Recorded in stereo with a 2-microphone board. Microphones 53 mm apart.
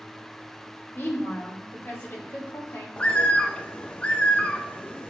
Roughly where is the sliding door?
No sliding door in this recording.